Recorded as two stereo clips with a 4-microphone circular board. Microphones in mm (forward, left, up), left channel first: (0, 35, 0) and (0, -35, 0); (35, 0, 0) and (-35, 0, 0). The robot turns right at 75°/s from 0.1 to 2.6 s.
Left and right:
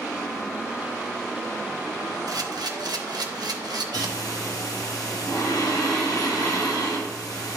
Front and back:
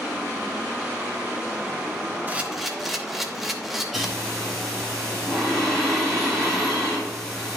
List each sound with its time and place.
2.3 s a camera shutter: 115° right, 0.9 m; by 4.1 s 90° right, 0.9 m
3.9 s breathing: 85° left, 4 m